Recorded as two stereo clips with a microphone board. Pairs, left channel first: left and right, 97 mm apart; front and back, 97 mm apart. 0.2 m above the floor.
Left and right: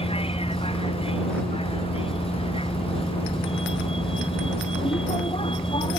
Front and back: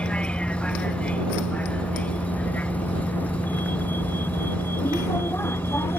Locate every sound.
0.0 s a vehicle: 80° left; by 6.0 s 65° left